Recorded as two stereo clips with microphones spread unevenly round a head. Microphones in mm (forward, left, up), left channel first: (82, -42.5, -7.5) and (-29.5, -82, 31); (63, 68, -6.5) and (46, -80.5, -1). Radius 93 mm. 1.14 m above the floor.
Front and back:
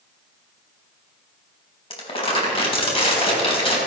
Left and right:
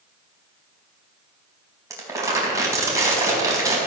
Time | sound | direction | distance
1.9 | crumpling | 25° right | 4 m